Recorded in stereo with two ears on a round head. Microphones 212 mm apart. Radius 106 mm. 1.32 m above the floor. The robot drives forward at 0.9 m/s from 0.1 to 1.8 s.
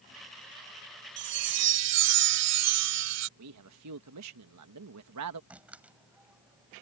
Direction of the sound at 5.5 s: 5° right (ahead or behind).